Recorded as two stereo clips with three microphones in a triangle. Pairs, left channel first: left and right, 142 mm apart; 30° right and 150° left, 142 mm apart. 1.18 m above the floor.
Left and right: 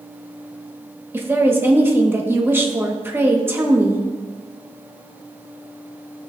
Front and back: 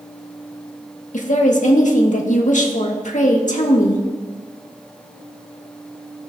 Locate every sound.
1.1 s a woman speaking: 15° right, 1.5 m